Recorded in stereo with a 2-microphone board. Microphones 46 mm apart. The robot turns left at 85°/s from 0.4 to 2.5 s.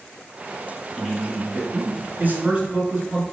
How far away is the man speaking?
About 2 m.